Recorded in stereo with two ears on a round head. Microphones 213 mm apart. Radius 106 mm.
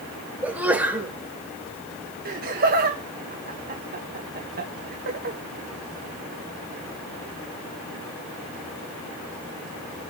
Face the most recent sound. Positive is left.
turn(degrees=-35)  # may be behind; listen again after turning